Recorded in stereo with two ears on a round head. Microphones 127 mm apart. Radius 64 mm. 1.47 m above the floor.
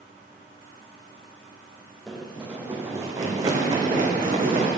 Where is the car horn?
I don't hear a car horn.